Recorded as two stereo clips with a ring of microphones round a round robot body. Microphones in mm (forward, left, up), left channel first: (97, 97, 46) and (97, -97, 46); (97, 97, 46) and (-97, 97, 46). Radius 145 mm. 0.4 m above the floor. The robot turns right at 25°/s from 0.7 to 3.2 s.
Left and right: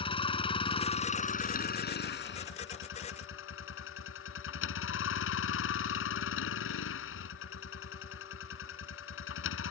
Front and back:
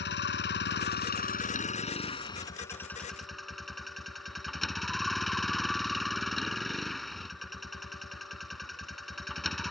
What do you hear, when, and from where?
0.0 s a vehicle: 25° left; by 9.7 s 90° left